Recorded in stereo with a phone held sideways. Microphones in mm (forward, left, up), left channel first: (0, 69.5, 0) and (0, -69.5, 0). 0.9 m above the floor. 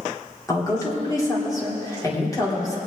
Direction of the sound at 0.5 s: 25° left (ahead or behind).